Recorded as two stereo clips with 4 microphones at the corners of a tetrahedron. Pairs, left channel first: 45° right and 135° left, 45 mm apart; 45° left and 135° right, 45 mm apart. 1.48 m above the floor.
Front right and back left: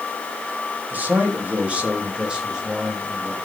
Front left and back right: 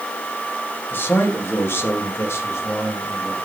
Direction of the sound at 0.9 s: 85° left.